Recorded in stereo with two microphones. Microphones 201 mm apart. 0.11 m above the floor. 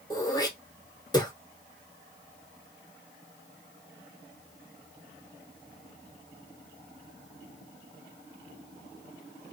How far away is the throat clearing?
About 0.7 m.